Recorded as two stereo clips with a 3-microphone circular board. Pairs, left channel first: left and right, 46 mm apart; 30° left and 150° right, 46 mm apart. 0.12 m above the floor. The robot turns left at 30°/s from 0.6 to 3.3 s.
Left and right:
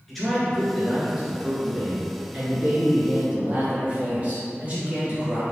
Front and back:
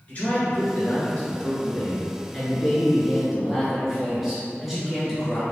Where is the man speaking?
5° left, 1.6 m; by 5.4 s 75° right, 1.6 m.